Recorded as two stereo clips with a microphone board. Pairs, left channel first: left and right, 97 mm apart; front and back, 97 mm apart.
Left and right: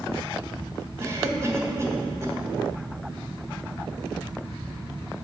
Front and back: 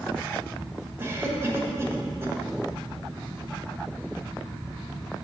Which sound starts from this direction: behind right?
A cough, at 1.0 s.